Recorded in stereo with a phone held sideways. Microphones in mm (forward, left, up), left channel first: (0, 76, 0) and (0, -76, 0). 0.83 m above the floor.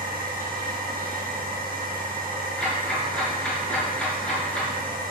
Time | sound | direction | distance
0.0 | a machine running | 75° right (ahead or behind) | 3 m
2.6 | ticking | 10° left (ahead or behind) | 5.5 m